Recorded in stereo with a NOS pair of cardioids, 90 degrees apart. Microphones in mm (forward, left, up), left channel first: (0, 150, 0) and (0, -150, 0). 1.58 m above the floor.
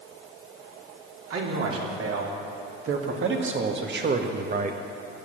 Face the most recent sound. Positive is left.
turn(degrees=-25)